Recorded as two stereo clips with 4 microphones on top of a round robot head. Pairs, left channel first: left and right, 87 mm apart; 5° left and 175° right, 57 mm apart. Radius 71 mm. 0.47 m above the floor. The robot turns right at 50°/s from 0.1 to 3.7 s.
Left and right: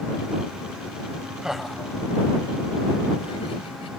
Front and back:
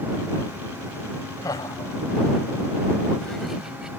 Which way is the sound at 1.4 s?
10° right.